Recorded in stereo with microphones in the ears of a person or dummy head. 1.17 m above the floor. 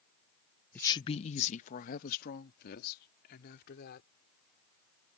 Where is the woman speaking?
10° left (ahead or behind); by 4.1 s 55° left (ahead or behind).